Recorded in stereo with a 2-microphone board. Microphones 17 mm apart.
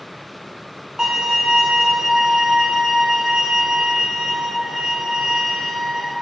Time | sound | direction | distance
1.0 | a violin | 35° right (ahead or behind) | 4.5 m